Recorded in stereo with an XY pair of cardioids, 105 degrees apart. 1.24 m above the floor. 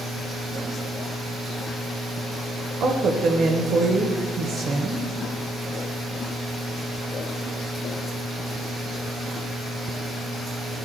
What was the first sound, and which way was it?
A woman speaking, 60° right.